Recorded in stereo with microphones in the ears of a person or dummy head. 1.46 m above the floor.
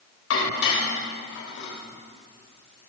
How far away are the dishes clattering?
About 4 m.